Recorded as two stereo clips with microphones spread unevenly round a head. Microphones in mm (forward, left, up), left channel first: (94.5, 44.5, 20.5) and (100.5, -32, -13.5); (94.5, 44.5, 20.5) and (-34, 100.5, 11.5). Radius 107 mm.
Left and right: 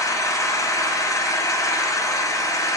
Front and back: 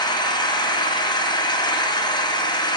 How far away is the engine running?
About 0.8 m.